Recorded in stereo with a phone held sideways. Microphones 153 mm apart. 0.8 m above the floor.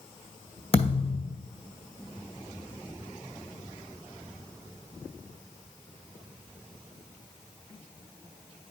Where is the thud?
40° left (ahead or behind), 2.0 m.